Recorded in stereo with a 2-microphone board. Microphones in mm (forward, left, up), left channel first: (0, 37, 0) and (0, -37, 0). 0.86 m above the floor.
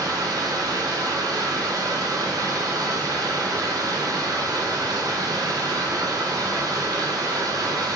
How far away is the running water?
About 0.9 m.